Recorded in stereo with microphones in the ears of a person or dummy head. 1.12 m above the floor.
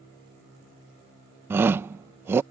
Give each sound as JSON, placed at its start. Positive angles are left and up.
{"t": 1.5, "sound": "a shout", "side_deg": -15}